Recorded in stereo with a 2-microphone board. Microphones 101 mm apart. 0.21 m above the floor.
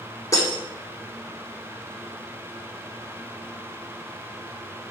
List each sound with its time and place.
0.3 s breaking glass: 35° left (ahead or behind), 3.5 m